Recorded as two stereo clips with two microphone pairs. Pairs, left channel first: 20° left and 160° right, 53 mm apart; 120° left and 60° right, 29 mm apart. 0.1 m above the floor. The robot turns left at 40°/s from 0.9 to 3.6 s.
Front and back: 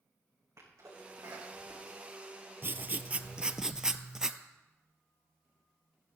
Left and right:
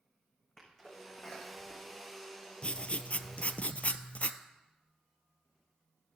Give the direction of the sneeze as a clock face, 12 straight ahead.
5 o'clock.